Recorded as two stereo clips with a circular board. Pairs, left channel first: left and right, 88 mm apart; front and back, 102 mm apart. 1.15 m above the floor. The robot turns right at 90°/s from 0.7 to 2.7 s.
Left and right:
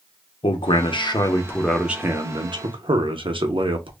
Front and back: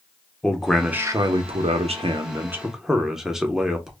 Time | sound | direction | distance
0.4 | a man speaking | 85° left | 0.6 m